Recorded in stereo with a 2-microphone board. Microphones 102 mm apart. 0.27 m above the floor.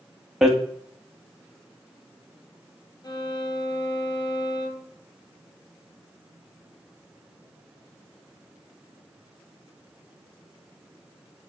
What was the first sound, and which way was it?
Hammering, 5° right (ahead or behind).